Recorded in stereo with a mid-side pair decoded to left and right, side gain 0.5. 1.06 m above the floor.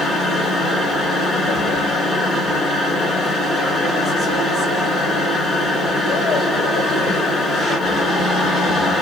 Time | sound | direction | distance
0.0 | a machine running | 35° left | 1.9 m